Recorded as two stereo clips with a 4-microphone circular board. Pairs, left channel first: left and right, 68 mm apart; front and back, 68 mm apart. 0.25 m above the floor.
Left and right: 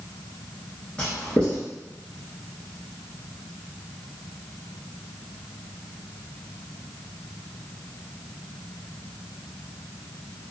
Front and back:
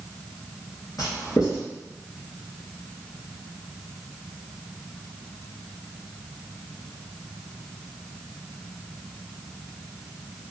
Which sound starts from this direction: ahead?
Writing, at 1.0 s.